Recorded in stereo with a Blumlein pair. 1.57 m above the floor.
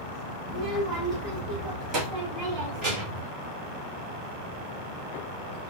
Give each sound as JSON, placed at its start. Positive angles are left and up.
{"t": 0.5, "sound": "a child speaking", "azimuth_deg": -10, "distance_m": 1.8}